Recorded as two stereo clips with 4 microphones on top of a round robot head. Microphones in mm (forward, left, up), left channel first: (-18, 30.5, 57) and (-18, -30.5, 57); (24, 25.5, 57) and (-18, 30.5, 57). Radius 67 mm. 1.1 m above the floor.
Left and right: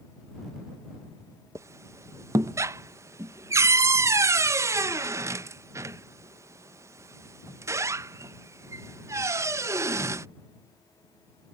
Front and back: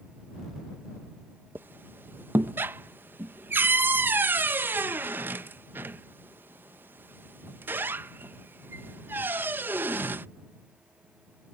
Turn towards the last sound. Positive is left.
turn(degrees=-135)